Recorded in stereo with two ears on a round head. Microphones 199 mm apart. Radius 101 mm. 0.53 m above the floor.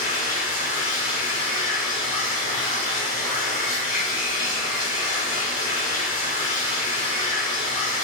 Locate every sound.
0.0 s running water: 40° left (ahead or behind), 1.8 m